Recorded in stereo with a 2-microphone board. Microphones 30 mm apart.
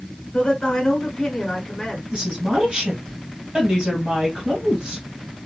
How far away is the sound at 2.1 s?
About 2.5 m.